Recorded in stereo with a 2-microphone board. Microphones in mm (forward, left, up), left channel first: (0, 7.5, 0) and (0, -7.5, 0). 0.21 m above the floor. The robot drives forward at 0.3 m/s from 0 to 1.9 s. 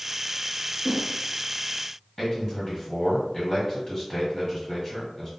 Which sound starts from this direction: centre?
A whoosh, at 0.8 s.